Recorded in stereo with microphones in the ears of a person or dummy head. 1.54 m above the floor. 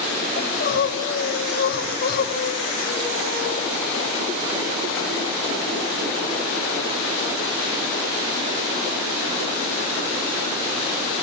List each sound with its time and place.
0.4 s crying: 55° left (ahead or behind), 7.5 m